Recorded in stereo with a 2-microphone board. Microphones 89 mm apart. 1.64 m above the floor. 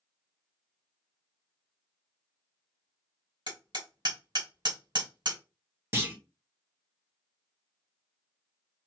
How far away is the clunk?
About 1.1 m.